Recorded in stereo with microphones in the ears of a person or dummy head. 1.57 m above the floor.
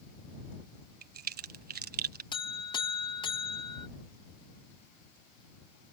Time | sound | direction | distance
1.0 | a crack | 50° right (ahead or behind) | ?
2.3 | a buzzer | 25° left (ahead or behind) | ?